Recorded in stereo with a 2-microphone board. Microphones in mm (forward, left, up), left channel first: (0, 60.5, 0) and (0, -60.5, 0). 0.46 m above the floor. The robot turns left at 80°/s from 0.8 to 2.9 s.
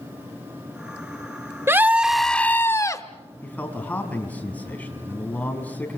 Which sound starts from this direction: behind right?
A scream, at 1.7 s.